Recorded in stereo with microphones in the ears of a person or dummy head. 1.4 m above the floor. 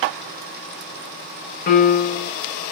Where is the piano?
45° left (ahead or behind), 1.0 m.